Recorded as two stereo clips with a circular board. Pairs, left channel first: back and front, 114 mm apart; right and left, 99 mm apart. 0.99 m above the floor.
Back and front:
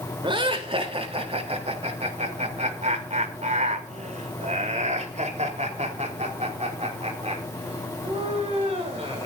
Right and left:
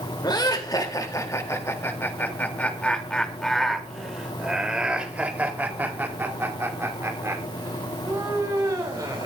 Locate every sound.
0.2 s laughter: 45° right, 3.5 m; by 9.3 s 35° left, 6.5 m